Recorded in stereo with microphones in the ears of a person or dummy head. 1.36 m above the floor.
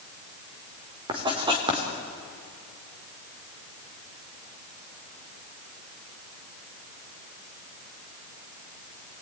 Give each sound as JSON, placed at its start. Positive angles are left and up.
{"t": 1.1, "sound": "writing", "side_deg": -30, "distance_m": 3.5}